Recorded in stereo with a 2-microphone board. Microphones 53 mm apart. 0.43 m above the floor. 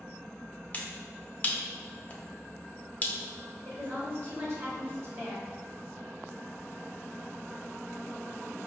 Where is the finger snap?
25° left (ahead or behind), 0.6 m.